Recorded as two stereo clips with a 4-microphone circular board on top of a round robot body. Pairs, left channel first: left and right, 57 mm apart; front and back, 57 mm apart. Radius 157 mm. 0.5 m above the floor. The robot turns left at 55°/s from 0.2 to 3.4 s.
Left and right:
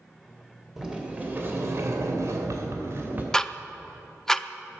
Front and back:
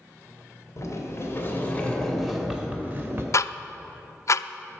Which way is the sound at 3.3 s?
15° left.